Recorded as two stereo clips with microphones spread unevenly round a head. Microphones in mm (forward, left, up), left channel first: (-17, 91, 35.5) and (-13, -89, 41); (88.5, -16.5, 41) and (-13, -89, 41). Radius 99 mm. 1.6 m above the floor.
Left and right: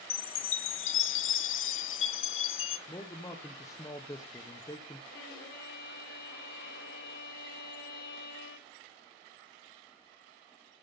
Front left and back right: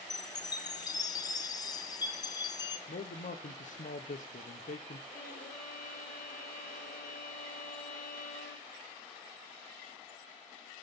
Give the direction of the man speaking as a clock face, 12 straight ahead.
11 o'clock.